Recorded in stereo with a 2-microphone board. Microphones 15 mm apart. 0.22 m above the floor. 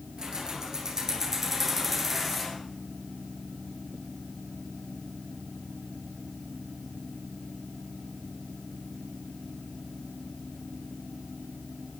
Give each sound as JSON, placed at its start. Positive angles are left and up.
{"t": 0.2, "sound": "keys jangling", "side_deg": -50, "distance_m": 3.5}